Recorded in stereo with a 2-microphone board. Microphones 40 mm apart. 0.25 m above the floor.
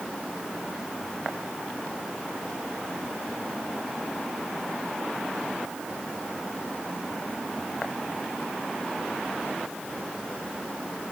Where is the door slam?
I don't hear a door slam.